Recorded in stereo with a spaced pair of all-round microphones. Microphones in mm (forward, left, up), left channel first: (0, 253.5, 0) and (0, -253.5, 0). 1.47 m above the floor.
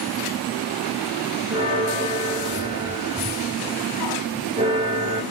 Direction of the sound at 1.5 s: 10° right (ahead or behind).